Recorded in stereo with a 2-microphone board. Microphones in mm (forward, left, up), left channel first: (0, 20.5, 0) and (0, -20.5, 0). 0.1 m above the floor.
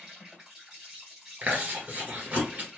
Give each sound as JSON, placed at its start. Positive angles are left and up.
{"t": 0.0, "sound": "an insect", "side_deg": -25, "distance_m": 2.0}
{"t": 1.4, "sound": "chewing", "side_deg": -35, "distance_m": 1.7}